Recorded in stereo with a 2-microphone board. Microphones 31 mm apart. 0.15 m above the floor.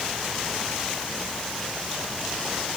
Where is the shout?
No shout in this recording.